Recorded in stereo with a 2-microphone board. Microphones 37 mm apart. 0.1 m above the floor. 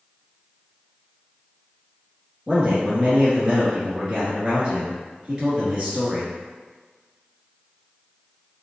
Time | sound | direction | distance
2.5 | a man speaking | 15° right (ahead or behind) | 1.8 m